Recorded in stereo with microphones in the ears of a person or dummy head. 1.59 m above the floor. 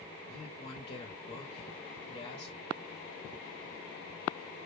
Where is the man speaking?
40° left (ahead or behind), 1.0 m.